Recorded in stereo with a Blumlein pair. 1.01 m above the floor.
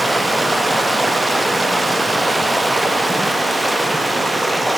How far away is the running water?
About 1.1 m.